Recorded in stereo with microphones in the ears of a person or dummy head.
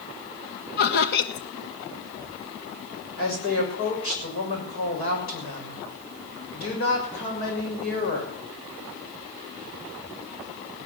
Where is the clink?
No clink in this recording.